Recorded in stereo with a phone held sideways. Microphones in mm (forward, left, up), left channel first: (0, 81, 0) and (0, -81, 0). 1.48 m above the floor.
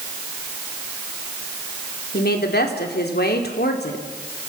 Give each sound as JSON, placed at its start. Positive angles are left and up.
{"t": 2.1, "sound": "a woman speaking", "side_deg": 85, "distance_m": 3.5}